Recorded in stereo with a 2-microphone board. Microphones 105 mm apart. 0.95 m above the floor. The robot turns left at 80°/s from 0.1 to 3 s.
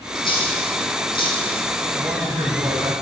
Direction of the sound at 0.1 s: 40° left (ahead or behind).